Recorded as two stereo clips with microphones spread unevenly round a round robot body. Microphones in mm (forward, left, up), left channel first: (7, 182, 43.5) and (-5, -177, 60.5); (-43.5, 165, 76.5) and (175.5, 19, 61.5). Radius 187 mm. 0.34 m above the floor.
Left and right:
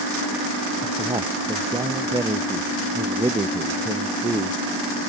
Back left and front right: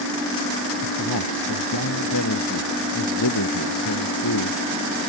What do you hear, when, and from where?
0.8 s a man speaking: 175° right